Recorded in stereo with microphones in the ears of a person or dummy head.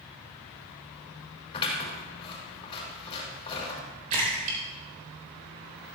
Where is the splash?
40° right (ahead or behind), 4 m.